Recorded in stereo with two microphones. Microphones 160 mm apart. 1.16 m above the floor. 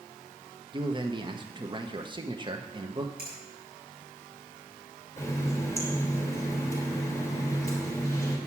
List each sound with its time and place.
0.7 s a man speaking: 30° right (ahead or behind), 1.2 m
3.2 s a finger snap: 65° right (ahead or behind), 7.5 m
5.2 s a running tap: 20° left (ahead or behind), 3 m